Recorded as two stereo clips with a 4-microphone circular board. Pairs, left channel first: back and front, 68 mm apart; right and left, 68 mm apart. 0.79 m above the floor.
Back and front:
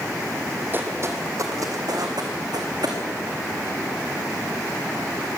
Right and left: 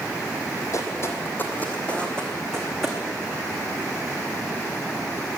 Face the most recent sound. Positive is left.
turn(degrees=-5)